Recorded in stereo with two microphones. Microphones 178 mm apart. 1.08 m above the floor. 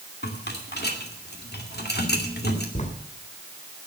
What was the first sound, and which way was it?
A rattle, 80° left.